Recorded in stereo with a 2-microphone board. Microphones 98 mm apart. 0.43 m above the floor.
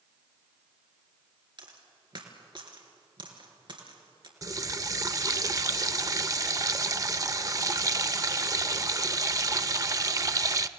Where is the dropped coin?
55° right (ahead or behind), 3 m.